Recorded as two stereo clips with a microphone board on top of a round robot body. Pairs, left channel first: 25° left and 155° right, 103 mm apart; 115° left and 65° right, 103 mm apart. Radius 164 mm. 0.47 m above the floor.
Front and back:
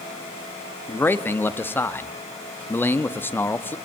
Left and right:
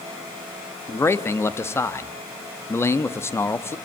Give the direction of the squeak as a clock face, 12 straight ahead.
I don't hear a squeak.